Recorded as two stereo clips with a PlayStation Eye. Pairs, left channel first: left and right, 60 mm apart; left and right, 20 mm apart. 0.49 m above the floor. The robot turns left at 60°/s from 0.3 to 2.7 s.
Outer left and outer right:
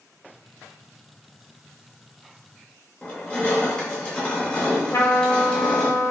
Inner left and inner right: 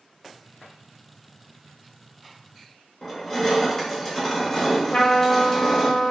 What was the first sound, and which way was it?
Crushing, 20° left (ahead or behind).